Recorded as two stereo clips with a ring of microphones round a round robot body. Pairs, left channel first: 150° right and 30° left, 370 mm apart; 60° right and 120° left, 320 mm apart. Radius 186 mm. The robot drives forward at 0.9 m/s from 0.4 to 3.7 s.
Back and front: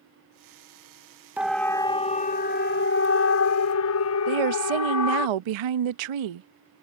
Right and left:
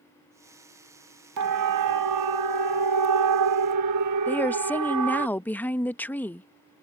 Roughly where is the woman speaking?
Ahead left.